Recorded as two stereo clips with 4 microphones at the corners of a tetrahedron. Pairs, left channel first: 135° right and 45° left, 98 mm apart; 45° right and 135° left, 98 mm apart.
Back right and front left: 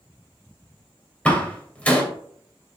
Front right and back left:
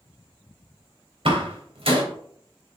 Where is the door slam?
150° left, 2.5 m.